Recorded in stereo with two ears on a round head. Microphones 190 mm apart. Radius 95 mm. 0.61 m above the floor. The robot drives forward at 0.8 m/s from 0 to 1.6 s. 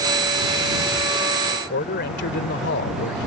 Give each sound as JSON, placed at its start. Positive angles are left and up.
{"t": 1.5, "sound": "a man speaking", "side_deg": 50}